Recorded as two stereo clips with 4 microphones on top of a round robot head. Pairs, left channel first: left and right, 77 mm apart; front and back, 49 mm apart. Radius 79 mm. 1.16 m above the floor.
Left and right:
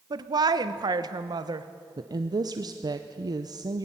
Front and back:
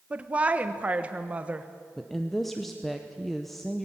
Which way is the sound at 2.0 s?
85° right.